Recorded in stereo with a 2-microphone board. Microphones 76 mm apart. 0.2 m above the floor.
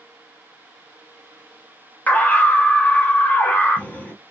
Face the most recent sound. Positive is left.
turn(degrees=20)  # may be behind; listen again after turning